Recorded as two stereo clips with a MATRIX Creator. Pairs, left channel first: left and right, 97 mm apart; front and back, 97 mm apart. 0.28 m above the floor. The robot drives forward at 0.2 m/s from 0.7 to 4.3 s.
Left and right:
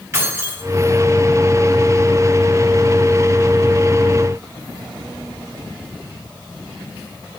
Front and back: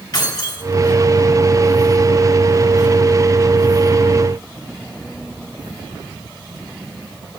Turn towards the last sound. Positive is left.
turn(degrees=-55)